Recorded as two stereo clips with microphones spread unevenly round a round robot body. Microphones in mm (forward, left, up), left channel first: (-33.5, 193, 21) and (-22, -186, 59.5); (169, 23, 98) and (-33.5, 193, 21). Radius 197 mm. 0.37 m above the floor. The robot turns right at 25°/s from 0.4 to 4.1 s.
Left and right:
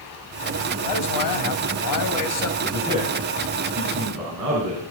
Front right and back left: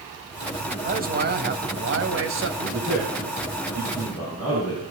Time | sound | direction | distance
0.8 | a man speaking | 95° left | 2.0 m
2.6 | a man speaking | 170° right | 5 m